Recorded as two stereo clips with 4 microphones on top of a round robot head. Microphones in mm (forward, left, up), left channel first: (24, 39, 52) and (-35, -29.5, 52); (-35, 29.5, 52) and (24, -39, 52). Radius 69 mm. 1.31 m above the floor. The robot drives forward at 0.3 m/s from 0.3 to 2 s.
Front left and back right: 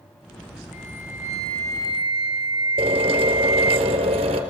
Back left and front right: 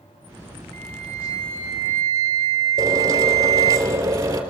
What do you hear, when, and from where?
0.7 s a flute: 55° right, 0.7 m; by 3.8 s 100° right, 0.6 m
2.8 s a drill: 110° right, 2.5 m